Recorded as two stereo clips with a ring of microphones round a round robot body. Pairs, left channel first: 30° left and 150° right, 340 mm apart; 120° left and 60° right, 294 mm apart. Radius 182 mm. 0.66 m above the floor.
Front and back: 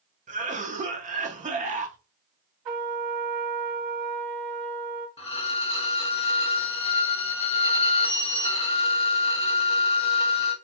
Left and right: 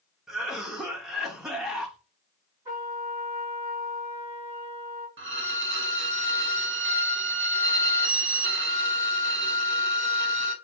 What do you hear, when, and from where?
0.3 s a cough: 145° right, 0.6 m
2.6 s a trumpet: 145° right, 1.5 m
5.2 s a violin: 35° right, 0.9 m